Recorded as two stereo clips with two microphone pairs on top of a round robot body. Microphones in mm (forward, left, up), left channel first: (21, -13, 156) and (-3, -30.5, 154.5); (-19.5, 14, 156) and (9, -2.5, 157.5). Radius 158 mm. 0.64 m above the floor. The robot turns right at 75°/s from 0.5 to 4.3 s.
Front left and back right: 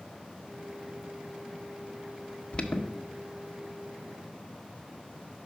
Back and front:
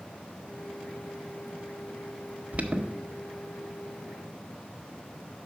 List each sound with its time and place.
2.5 s an alarm: 5° right, 1.1 m; by 2.9 s 20° left, 1.1 m